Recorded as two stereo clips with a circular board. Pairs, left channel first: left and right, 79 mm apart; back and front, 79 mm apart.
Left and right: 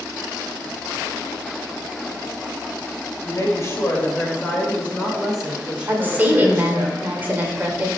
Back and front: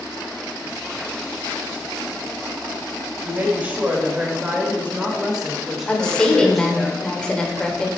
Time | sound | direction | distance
3.2 | a woman speaking | 60° left | 2 m
5.9 | a woman speaking | 115° right | 1.2 m